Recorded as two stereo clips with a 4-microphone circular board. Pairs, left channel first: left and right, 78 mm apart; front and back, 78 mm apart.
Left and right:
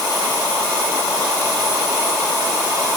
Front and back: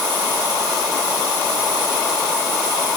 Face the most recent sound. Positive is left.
No sound to turn to.